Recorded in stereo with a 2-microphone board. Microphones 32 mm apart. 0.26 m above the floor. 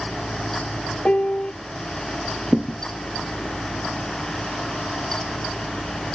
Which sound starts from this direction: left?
A piano, at 1.1 s.